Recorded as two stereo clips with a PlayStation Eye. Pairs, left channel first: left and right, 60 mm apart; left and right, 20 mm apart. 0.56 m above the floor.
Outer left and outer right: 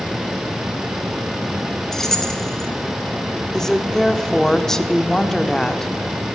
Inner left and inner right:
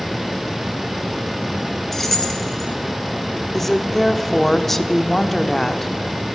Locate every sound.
1.9 s keys jangling: 10° left (ahead or behind), 1.2 m
3.5 s a woman speaking: 10° left (ahead or behind), 0.9 m